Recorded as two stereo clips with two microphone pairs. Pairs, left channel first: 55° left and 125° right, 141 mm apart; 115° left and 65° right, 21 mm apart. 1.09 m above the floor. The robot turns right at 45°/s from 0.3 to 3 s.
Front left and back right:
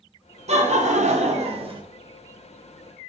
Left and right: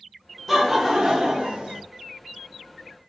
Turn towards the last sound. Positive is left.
turn(degrees=-30)